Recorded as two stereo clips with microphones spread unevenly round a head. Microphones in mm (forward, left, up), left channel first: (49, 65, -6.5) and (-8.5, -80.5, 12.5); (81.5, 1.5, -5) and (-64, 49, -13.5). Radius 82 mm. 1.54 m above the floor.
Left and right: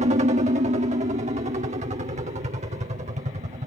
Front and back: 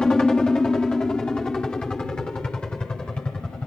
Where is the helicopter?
100° right.